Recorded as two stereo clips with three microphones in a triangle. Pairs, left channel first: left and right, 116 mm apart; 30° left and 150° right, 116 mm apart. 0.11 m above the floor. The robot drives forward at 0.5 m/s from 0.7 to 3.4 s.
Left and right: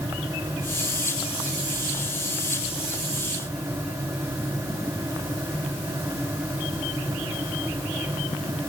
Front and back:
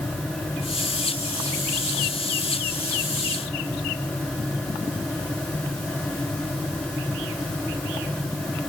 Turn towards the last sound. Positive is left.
No sound to turn to.